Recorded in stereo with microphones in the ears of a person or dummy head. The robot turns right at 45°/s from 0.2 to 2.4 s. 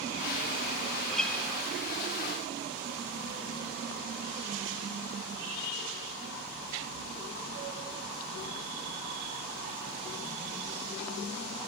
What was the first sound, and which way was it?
A guitar, centre (ahead or behind).